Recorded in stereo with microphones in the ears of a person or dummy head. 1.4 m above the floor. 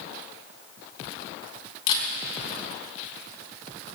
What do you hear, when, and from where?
1.9 s a camera shutter: 45° left (ahead or behind), 3.5 m